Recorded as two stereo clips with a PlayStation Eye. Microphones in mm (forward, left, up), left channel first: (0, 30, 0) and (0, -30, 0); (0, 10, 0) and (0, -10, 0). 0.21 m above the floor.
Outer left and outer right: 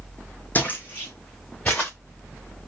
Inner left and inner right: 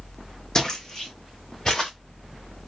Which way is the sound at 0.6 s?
30° left (ahead or behind).